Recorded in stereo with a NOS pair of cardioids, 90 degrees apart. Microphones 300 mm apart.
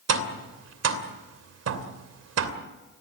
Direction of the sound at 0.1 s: 55° right.